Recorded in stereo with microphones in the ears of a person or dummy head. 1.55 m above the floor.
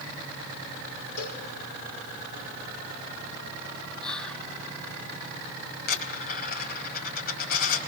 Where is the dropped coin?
50° left (ahead or behind), 3.5 m.